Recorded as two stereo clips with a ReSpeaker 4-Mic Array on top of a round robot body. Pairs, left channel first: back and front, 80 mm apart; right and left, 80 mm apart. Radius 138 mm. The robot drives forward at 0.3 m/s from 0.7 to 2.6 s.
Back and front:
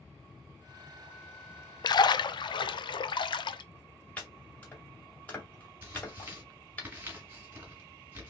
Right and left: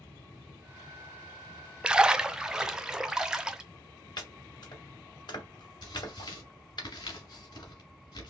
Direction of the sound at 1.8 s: 170° left.